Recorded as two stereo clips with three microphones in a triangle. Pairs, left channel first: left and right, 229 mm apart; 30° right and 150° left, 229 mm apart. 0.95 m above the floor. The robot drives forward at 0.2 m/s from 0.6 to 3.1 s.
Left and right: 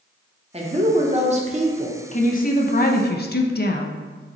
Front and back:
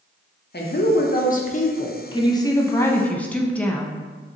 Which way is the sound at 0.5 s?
35° right.